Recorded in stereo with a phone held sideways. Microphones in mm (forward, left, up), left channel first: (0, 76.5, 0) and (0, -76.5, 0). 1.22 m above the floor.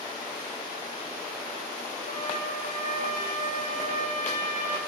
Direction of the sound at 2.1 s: 50° left (ahead or behind).